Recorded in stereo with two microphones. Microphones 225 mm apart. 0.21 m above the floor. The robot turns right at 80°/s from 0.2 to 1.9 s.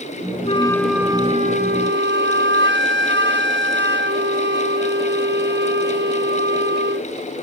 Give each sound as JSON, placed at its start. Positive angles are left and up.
{"t": 0.5, "sound": "a flute", "azimuth_deg": 145}